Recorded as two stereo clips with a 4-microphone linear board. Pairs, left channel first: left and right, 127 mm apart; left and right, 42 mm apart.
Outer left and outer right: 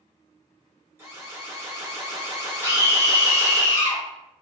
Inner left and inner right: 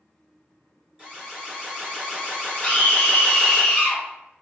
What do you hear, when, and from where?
1.0 s an alarm: 20° right (ahead or behind), 1.7 m
2.6 s a scream: 25° left (ahead or behind), 1.9 m